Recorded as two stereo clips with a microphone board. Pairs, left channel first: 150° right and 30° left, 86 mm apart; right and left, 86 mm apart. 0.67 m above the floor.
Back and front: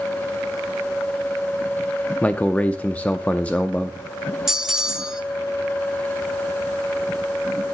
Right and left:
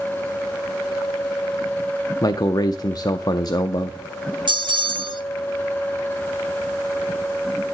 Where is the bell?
115° left, 0.9 m.